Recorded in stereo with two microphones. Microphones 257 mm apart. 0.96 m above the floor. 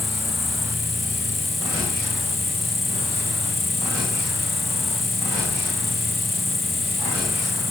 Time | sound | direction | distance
0.0 | an insect | centre (ahead or behind) | ?